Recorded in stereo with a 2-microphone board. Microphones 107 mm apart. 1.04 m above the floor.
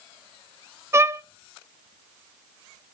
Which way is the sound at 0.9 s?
25° right (ahead or behind).